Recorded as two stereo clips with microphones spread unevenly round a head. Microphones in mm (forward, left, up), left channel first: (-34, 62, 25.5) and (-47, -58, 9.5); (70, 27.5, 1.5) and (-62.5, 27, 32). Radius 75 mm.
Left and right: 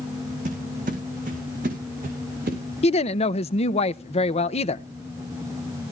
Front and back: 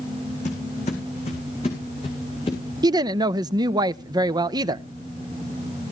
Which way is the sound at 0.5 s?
50° right.